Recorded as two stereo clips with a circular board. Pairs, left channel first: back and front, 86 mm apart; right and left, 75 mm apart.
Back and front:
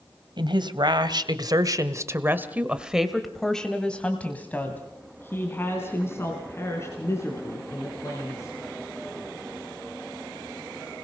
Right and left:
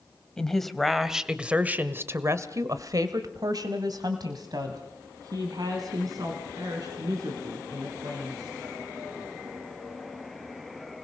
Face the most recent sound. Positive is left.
turn(degrees=125)